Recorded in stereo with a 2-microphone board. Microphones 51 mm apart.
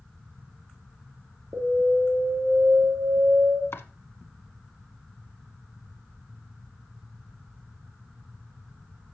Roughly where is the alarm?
Right.